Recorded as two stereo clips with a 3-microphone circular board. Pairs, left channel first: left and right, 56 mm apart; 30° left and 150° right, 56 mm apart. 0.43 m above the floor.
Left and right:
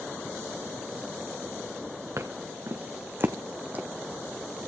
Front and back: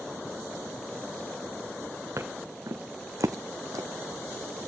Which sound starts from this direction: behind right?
Footsteps, at 2.2 s.